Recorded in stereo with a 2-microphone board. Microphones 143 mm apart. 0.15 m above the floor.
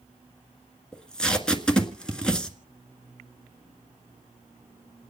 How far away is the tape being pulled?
About 1.6 m.